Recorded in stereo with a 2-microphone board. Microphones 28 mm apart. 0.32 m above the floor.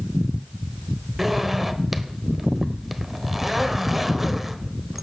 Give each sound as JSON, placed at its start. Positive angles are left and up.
{"t": 1.2, "sound": "a zipper", "side_deg": -5, "distance_m": 1.2}